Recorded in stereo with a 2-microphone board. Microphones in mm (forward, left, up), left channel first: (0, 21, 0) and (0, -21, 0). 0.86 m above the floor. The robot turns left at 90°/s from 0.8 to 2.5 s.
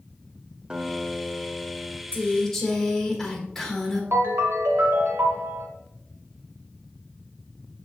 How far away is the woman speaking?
About 1.4 m.